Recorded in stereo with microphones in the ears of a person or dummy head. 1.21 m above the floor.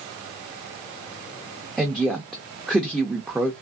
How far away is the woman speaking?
About 0.5 m.